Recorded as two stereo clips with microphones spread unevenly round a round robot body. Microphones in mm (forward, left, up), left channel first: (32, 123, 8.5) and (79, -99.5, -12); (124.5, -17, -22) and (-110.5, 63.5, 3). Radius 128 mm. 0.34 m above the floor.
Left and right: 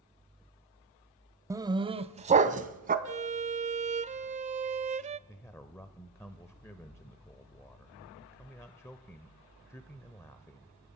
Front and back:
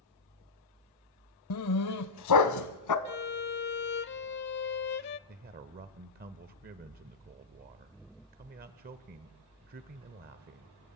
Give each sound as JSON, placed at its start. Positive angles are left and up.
{"t": 1.5, "sound": "a dog barking", "azimuth_deg": -5, "distance_m": 0.7}
{"t": 3.0, "sound": "a violin", "azimuth_deg": -35, "distance_m": 0.5}
{"t": 5.3, "sound": "a man speaking", "azimuth_deg": 180, "distance_m": 0.9}